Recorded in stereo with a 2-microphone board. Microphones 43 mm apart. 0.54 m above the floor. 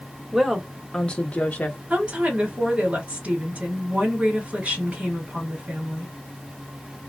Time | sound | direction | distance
0.3 | a woman speaking | 10° right (ahead or behind) | 0.8 m
1.9 | a woman speaking | 30° right (ahead or behind) | 1.7 m